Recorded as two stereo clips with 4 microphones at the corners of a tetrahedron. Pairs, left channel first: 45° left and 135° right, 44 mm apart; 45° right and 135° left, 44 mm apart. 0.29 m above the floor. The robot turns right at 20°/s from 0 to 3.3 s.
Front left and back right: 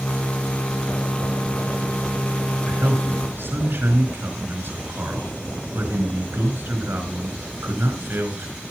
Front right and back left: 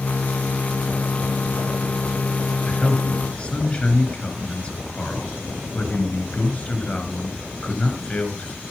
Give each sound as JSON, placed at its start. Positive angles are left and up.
{"t": 2.7, "sound": "a man speaking", "azimuth_deg": -120, "distance_m": 4.5}